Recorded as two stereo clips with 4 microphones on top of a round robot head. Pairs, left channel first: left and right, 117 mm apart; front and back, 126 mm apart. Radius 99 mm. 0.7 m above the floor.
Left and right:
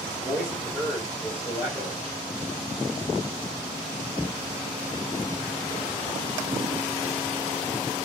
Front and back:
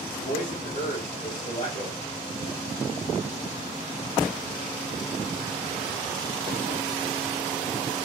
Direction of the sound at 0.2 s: 5° left.